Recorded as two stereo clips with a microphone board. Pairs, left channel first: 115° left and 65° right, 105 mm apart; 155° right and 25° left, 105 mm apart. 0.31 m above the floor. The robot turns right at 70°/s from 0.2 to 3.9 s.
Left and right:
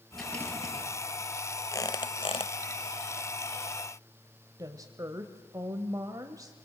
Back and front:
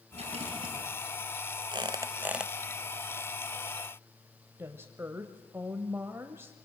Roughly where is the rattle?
Ahead left.